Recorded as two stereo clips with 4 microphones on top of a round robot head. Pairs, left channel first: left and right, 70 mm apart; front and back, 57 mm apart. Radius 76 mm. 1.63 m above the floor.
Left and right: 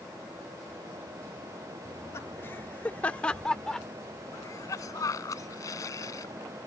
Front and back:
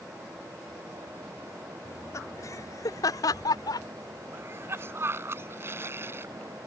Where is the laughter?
35° left; by 3.9 s 5° left.